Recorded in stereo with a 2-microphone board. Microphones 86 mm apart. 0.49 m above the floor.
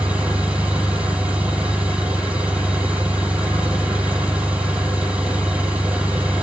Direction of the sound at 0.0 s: 20° right (ahead or behind).